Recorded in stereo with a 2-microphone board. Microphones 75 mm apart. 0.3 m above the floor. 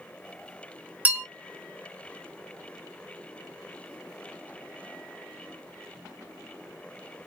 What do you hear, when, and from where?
1.1 s a bell: 20° right (ahead or behind), 0.8 m